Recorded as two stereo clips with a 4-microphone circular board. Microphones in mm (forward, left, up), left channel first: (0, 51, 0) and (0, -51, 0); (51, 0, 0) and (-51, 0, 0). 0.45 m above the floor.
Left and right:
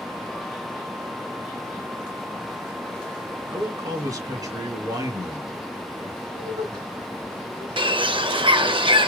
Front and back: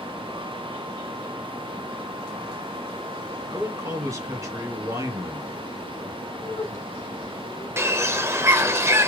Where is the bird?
120° right, 0.7 m.